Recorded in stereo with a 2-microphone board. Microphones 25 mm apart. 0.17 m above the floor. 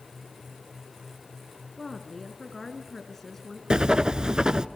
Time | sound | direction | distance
1.8 | a woman speaking | 10° left (ahead or behind) | 1.7 m
3.7 | writing | 35° right (ahead or behind) | 0.9 m